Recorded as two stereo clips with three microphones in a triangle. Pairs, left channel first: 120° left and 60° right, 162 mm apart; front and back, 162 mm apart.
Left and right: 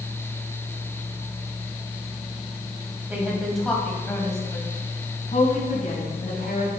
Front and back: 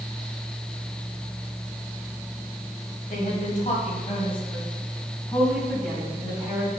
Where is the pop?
I don't hear a pop.